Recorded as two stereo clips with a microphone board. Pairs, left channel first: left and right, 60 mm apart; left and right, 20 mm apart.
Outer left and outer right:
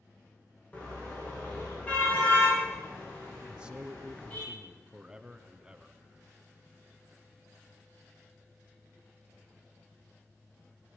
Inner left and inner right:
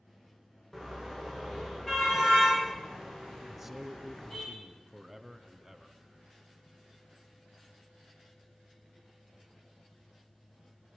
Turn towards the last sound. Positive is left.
turn(degrees=-15)  # may be behind; listen again after turning